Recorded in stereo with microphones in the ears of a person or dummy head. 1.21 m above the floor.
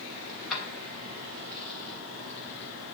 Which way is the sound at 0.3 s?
Centre (ahead or behind).